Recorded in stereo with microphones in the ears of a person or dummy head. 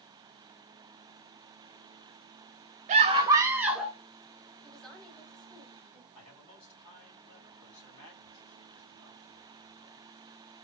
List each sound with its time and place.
2.9 s a scream: 25° right (ahead or behind), 0.6 m; by 4.0 s centre (ahead or behind), 0.9 m
4.6 s a woman speaking: 5° left (ahead or behind), 1.0 m
6.2 s a man speaking: 80° left, 3.5 m